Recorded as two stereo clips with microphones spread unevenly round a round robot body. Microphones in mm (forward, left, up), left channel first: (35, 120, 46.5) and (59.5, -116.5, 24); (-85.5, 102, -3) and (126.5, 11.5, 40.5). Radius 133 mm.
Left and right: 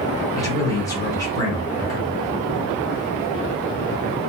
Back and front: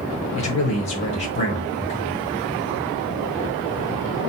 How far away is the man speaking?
About 1.0 m.